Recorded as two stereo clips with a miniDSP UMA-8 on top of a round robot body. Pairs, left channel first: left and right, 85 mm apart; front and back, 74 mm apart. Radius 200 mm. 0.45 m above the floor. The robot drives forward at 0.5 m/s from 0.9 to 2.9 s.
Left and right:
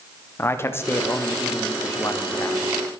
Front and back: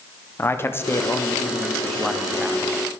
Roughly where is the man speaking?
Ahead left.